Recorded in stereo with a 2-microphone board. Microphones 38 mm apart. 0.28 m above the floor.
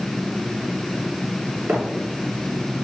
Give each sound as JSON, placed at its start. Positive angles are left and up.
{"t": 1.7, "sound": "footsteps", "side_deg": -45, "distance_m": 3.0}